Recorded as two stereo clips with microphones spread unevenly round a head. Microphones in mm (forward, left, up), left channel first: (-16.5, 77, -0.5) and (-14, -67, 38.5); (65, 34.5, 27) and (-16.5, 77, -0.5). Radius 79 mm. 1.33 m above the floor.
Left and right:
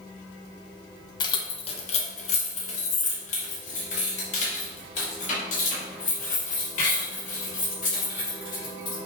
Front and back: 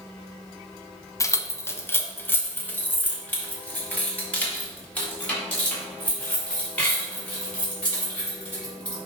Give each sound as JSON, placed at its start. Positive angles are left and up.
{"t": 1.2, "sound": "keys jangling", "azimuth_deg": 20, "distance_m": 0.6}